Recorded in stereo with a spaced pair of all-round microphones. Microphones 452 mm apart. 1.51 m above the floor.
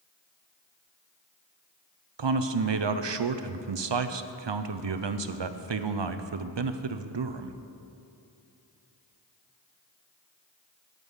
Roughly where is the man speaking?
Right.